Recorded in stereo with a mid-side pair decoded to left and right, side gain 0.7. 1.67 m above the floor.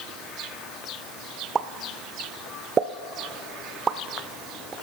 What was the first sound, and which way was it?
A pop, 25° right.